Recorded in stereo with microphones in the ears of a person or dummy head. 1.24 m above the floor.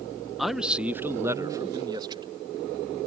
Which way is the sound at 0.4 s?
10° left (ahead or behind).